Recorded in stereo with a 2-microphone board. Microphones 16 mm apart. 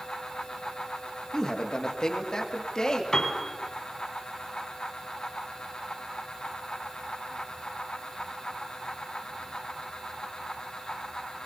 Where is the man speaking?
50° left (ahead or behind), 2 m; by 3.0 s 55° left (ahead or behind), 3 m.